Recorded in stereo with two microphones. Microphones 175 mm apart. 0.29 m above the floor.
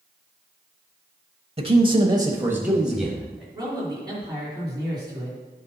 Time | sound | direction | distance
1.6 | a man speaking | 35° right (ahead or behind) | 1.0 m
3.5 | a man speaking | 25° right (ahead or behind) | 4 m